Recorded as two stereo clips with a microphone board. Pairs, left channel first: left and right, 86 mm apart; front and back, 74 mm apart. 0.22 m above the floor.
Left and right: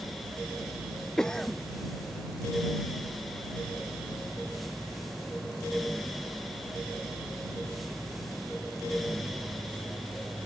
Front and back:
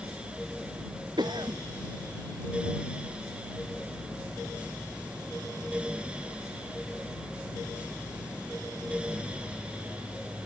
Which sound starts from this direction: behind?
A cough, at 1.2 s.